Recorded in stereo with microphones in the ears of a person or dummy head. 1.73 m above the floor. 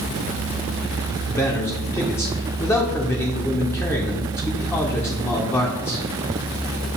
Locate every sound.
1.3 s a man speaking: 10° left (ahead or behind), 0.6 m